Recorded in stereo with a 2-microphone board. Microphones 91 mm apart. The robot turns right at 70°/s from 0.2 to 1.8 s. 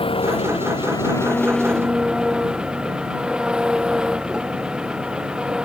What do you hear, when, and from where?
0.0 s an engine running: 75° left; by 5.6 s 170° right